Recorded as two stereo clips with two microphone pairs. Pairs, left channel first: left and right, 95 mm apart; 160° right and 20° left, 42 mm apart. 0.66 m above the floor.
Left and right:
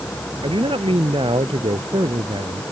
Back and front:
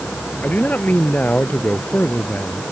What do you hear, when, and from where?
0.4 s a man speaking: 110° right